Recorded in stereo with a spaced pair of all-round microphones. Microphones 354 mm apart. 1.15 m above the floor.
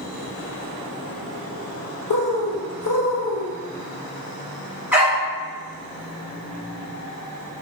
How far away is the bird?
About 0.5 m.